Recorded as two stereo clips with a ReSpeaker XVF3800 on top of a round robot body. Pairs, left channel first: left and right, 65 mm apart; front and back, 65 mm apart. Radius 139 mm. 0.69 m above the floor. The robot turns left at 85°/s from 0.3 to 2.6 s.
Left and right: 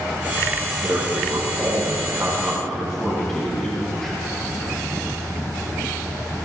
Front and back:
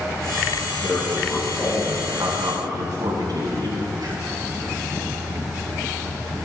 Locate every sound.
0.8 s a man speaking: 35° right, 9.5 m; by 4.2 s 175° left, 9.5 m